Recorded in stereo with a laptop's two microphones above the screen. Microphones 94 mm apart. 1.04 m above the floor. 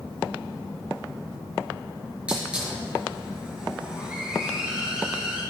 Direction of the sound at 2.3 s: 10° right (ahead or behind).